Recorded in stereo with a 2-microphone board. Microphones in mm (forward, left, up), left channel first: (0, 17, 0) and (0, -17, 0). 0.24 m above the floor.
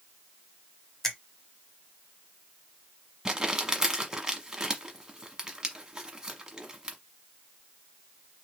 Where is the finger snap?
15° left (ahead or behind), 1.1 m.